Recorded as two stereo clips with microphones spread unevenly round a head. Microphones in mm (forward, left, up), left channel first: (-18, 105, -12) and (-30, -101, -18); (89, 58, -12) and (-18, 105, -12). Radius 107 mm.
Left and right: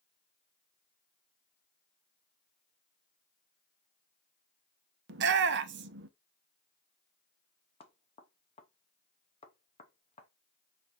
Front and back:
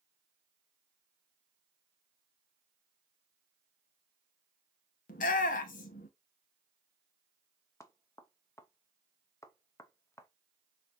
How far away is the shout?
About 0.6 m.